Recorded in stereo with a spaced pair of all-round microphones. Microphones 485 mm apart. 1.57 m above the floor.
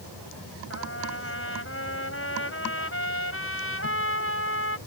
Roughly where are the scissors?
No scissors in this recording.